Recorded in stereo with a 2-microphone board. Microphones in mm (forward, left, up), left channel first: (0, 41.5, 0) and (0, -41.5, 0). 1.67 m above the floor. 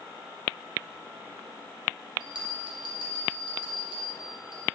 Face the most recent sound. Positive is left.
turn(degrees=-75)  # may be behind; listen again after turning